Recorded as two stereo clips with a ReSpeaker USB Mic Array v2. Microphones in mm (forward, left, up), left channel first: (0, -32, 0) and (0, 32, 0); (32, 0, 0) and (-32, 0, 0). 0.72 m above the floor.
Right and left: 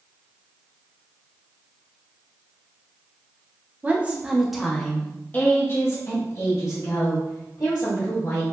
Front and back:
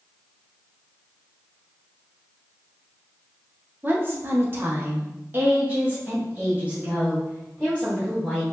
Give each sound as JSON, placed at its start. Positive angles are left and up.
{"t": 3.8, "sound": "a woman speaking", "azimuth_deg": 140, "distance_m": 1.0}